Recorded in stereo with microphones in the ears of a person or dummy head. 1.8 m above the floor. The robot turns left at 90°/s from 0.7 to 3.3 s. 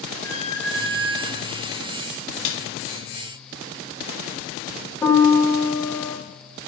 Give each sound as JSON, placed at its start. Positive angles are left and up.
{"t": 0.2, "sound": "a squeak", "azimuth_deg": 160, "distance_m": 2.5}
{"t": 2.5, "sound": "a snare drum", "side_deg": 70, "distance_m": 0.9}
{"t": 5.0, "sound": "a piano", "side_deg": 10, "distance_m": 1.3}